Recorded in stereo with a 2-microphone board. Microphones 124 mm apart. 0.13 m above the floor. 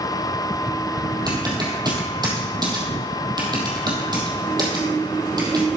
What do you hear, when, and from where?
1.3 s typing on a keyboard: 35° right (ahead or behind), 3 m